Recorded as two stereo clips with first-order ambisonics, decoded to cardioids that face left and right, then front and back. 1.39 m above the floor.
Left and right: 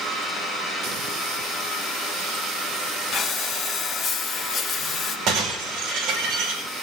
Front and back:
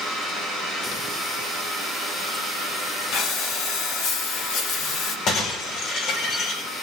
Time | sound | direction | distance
3.1 | breathing | 30° left | 1.9 m
5.3 | breaking glass | 45° right | 9 m